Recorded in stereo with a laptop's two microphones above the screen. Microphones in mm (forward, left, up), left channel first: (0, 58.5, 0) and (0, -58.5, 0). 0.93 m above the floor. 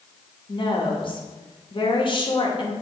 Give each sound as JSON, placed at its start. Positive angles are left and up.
{"t": 0.5, "sound": "a woman speaking", "side_deg": 45, "distance_m": 1.0}